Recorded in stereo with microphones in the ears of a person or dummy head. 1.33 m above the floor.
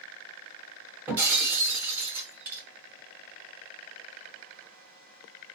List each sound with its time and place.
1.1 s breaking glass: 10° right (ahead or behind), 2.0 m